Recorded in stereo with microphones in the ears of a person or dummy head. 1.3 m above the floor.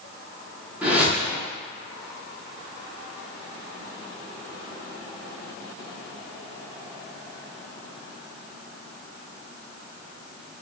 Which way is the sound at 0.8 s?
5° right (ahead or behind).